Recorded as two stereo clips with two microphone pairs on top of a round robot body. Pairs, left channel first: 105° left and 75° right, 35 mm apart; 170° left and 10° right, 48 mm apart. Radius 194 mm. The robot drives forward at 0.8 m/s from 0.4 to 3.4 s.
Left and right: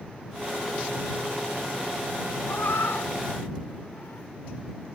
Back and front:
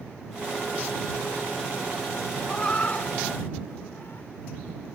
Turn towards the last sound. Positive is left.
turn(degrees=125)